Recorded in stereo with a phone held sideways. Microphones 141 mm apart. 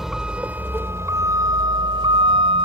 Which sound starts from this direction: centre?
A vehicle, at 0.0 s.